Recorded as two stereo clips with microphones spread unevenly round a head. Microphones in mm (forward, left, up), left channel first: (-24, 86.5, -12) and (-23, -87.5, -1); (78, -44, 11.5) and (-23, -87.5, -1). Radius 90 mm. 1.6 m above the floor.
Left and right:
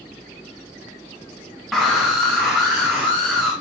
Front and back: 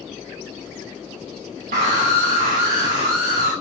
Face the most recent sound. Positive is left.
turn(degrees=180)